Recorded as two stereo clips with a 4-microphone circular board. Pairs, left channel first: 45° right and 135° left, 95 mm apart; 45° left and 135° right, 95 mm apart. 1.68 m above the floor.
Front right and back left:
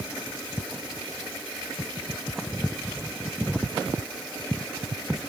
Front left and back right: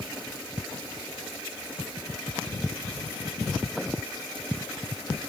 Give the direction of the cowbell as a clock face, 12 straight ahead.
No cowbell in this recording.